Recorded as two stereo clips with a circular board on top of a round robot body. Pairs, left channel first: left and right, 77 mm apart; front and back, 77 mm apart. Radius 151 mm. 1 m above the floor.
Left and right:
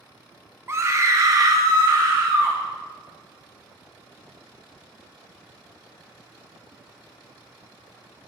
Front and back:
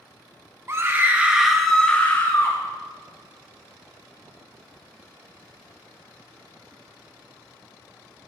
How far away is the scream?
About 1.1 m.